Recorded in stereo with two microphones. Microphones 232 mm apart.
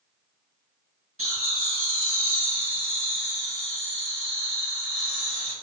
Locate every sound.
1.2 s laughter: 70° right (ahead or behind), 1.7 m; by 5.5 s 60° right (ahead or behind), 4 m